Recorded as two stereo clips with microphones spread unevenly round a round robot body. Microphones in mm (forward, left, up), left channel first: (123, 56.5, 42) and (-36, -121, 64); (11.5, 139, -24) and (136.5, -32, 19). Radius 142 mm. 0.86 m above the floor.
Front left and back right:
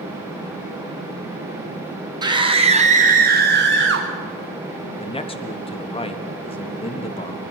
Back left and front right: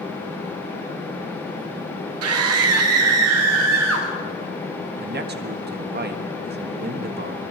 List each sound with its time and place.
2.2 s a scream: 55° right, 1.7 m; by 4.1 s 100° right, 1.5 m
5.0 s a man speaking: 10° right, 1.6 m